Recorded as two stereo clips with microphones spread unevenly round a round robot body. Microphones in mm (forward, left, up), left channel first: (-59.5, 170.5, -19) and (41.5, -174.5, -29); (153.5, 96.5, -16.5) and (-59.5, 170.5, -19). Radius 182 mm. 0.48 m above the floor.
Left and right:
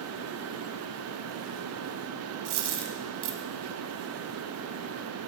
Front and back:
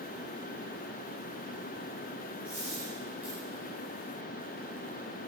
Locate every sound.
2.5 s a dropped coin: 115° right, 1.0 m